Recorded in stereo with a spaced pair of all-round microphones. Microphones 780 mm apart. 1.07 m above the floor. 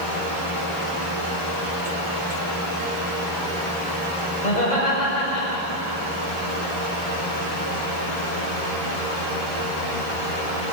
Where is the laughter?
65° left (ahead or behind), 6.5 m; by 6.0 s 75° left (ahead or behind), 6.5 m.